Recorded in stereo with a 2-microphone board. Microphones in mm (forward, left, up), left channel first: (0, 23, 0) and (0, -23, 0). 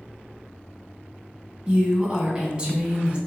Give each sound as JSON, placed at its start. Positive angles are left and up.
{"t": 1.7, "sound": "a woman speaking", "side_deg": -25, "distance_m": 1.0}